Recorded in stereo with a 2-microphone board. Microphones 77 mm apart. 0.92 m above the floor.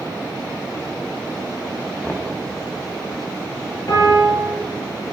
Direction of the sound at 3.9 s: 50° left (ahead or behind).